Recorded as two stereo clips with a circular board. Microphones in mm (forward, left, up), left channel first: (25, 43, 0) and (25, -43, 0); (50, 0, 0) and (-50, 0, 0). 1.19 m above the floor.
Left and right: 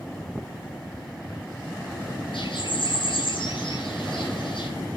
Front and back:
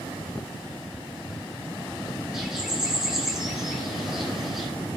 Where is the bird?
95° left, 6.5 m.